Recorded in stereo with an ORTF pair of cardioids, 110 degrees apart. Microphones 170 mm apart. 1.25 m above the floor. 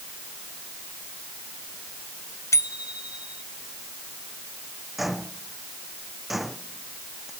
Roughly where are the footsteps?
Ahead.